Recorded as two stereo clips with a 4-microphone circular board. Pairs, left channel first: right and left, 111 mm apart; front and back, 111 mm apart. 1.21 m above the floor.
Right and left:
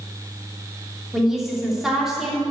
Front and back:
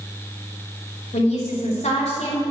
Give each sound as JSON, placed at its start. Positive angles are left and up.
{"t": 1.1, "sound": "a woman speaking", "azimuth_deg": 5, "distance_m": 3.0}